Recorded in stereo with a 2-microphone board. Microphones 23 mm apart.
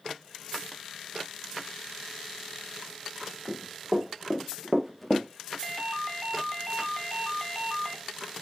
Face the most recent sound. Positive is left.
turn(degrees=10)  # may be behind; listen again after turning